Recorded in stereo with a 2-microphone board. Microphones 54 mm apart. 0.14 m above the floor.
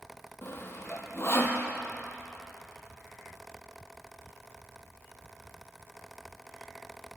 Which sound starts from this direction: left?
Sawing, at 0.4 s.